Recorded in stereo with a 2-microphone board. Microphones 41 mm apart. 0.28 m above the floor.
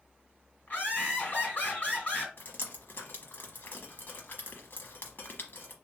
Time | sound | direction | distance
0.7 | laughter | 45° left (ahead or behind) | 2 m
2.4 | dripping | 60° left (ahead or behind) | 1.0 m